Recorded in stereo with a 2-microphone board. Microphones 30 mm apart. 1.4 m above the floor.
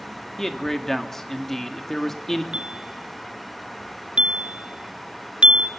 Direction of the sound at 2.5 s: 40° right (ahead or behind).